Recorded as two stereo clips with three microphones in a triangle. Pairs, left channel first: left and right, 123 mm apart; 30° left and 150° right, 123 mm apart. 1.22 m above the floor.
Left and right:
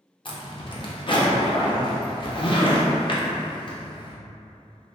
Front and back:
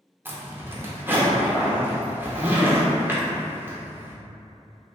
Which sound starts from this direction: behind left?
A zipper, at 0.2 s.